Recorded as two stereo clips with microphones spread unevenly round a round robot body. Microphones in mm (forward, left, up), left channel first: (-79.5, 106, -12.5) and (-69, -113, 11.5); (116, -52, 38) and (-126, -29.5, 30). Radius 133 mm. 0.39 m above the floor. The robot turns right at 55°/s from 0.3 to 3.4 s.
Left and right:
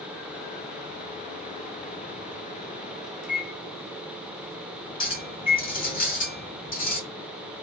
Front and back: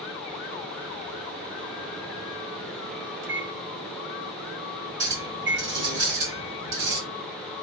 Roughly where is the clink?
Behind left.